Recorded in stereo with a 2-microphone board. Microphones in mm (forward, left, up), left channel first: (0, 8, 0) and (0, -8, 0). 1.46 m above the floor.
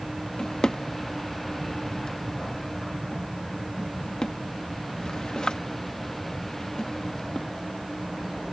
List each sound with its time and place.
0.4 s a drawer: 45° left (ahead or behind)